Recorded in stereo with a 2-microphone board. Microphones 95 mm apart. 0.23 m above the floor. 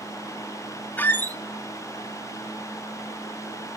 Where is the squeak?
20° left (ahead or behind), 0.5 m.